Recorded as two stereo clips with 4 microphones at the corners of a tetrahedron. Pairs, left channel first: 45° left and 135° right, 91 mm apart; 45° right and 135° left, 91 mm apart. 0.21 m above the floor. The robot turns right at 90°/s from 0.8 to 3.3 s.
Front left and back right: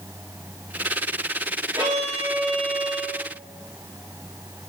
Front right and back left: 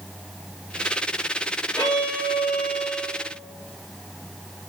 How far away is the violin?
About 4 m.